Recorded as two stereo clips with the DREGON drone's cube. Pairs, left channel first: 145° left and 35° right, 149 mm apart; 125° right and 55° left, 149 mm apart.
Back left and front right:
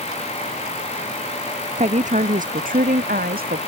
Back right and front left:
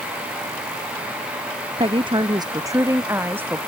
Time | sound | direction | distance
1.8 | a woman speaking | 5° left | ?